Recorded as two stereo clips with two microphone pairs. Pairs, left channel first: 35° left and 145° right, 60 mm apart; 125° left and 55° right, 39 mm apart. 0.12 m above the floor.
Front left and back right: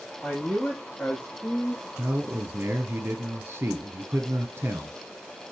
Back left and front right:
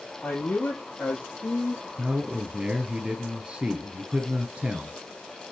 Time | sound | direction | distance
0.2 | a man speaking | 115° left | 4.5 m
2.0 | a man speaking | 110° right | 2.0 m